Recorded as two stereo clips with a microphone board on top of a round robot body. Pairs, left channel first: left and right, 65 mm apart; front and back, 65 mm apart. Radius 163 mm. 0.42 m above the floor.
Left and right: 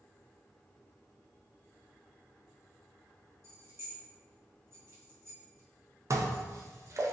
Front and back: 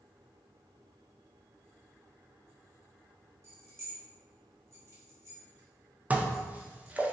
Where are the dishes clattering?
115° right, 0.7 m.